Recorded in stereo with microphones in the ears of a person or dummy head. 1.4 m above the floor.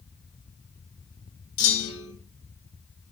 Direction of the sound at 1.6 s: 65° left (ahead or behind).